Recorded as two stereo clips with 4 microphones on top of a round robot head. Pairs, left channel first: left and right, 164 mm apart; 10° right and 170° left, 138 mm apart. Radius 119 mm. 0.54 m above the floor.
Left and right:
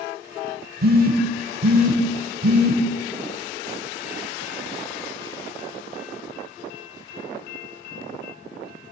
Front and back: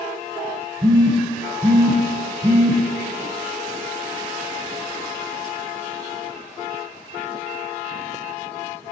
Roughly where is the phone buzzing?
Behind right.